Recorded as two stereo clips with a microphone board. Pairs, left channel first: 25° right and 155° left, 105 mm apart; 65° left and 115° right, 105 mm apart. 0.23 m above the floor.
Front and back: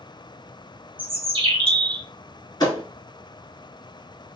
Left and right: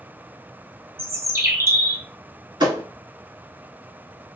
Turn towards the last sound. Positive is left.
turn(degrees=-70)